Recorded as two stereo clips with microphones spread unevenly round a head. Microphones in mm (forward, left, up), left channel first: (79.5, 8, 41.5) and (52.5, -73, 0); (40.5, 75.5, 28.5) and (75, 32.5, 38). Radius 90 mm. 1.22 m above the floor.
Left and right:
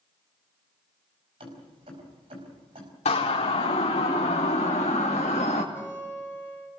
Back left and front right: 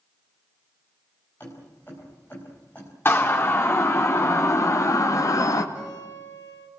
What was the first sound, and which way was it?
Keys jangling, 155° right.